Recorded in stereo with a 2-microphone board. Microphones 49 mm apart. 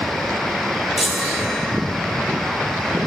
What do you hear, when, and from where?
1.0 s a chime: centre (ahead or behind), 1.0 m